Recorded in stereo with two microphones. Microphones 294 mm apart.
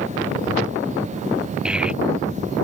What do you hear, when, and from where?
1.6 s a child speaking: 5° right (ahead or behind)